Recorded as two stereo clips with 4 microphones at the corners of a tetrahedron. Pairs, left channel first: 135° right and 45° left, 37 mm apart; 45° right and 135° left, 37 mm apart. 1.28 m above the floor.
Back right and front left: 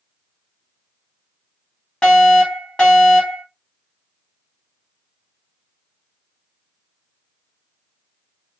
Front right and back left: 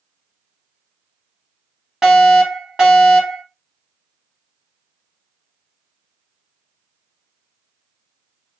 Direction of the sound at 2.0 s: 175° right.